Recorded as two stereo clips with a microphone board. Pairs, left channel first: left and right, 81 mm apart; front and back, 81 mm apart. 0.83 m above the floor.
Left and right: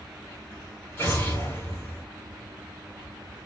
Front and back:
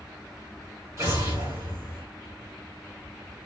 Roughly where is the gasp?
I don't hear a gasp.